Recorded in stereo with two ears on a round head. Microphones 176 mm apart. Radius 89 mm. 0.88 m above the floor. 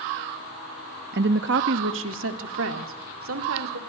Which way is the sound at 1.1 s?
55° right (ahead or behind).